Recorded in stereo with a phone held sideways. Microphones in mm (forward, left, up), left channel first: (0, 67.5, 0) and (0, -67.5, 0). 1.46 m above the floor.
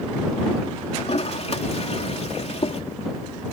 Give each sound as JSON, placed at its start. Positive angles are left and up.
{"t": 1.0, "sound": "a toilet flushing", "side_deg": 55}